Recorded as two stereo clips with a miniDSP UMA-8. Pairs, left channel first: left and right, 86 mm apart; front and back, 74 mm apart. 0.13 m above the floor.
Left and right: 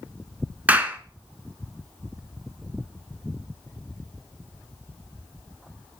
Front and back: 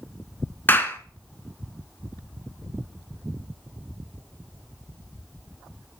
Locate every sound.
0.7 s a clap: 35° right, 1.0 m